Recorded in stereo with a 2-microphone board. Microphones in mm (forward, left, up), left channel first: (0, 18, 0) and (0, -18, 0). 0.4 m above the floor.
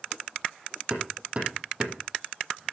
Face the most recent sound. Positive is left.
turn(degrees=-35)  # may be behind; listen again after turning